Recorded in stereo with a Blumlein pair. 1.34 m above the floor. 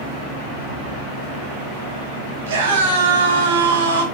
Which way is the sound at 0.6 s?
65° right.